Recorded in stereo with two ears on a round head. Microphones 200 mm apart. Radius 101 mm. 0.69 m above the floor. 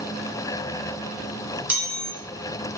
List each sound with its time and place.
1.7 s a chime: 5° right (ahead or behind), 0.5 m